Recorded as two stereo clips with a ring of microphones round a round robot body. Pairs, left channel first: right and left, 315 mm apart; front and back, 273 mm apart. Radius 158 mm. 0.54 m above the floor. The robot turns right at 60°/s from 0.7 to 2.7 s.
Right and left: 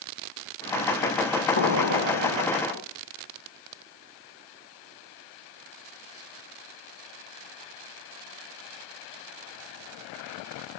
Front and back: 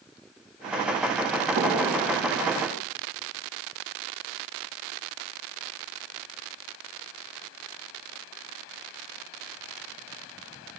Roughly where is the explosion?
Behind right.